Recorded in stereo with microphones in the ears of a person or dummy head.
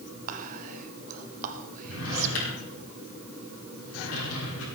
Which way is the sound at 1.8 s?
80° left.